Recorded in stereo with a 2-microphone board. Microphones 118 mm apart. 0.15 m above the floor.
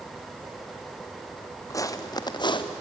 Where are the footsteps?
25° left (ahead or behind), 2 m; by 2.7 s 45° left (ahead or behind), 2 m.